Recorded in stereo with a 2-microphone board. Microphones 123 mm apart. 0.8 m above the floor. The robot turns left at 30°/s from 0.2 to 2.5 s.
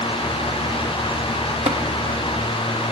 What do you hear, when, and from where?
1.7 s tapping: 55° right (ahead or behind), 0.7 m